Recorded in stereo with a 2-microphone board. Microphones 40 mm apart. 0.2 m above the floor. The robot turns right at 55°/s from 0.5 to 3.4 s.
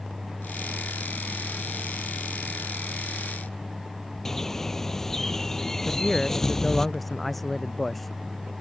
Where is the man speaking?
5° left (ahead or behind).